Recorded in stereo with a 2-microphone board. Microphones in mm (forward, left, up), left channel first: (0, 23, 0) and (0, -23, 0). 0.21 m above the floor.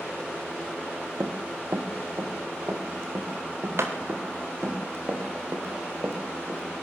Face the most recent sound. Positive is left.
turn(degrees=-60)  # may be behind; listen again after turning